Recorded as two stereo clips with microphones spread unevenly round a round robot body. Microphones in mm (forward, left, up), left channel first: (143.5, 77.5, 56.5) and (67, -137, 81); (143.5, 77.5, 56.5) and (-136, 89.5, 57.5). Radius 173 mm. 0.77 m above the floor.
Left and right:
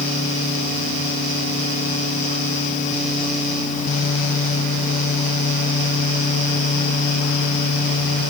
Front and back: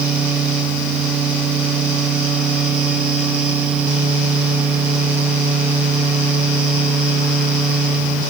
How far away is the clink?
I don't hear a clink.